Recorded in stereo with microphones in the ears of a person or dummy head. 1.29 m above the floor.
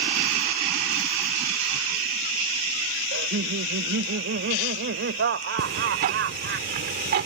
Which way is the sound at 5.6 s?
50° right (ahead or behind).